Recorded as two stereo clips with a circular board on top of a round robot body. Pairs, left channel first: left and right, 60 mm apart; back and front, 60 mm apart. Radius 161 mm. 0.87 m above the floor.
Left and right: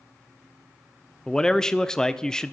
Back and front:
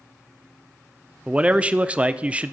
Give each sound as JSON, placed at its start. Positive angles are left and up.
{"t": 1.3, "sound": "a man speaking", "azimuth_deg": 30, "distance_m": 0.7}